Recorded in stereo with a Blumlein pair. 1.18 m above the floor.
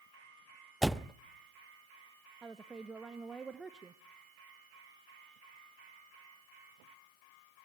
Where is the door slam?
5° right, 0.6 m.